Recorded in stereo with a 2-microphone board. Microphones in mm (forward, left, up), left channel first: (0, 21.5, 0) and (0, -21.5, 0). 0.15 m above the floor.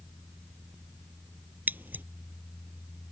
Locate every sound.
1.7 s scissors: 45° right (ahead or behind)